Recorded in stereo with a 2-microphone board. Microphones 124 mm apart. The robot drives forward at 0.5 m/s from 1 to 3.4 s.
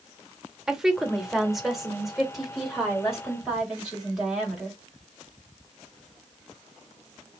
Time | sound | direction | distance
0.7 | a woman speaking | 5° right (ahead or behind) | 0.7 m